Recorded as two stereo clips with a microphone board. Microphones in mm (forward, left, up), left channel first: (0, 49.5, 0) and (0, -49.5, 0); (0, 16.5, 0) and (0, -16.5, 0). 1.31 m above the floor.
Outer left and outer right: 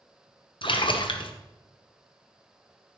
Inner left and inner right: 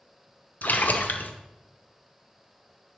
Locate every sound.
0.6 s a splash: 60° left (ahead or behind), 0.8 m